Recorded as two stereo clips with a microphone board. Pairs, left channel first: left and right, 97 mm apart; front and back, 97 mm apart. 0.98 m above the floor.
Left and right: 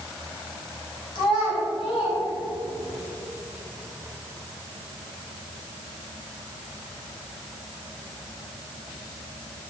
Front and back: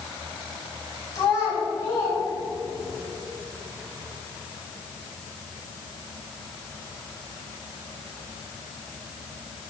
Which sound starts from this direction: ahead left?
A child speaking, at 1.1 s.